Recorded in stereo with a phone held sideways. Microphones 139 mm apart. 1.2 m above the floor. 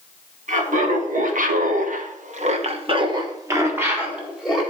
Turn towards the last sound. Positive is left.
turn(degrees=-5)  # may be behind; listen again after turning